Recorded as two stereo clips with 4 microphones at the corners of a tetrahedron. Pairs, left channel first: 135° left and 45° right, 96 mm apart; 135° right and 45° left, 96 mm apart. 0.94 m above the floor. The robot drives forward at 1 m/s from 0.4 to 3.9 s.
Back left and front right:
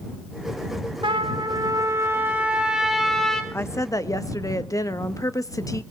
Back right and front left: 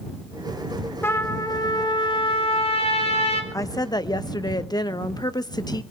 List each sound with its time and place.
1.0 s a trumpet: 70° right, 1.8 m; by 3.4 s 140° right, 2.5 m
3.5 s a woman speaking: 175° right, 0.6 m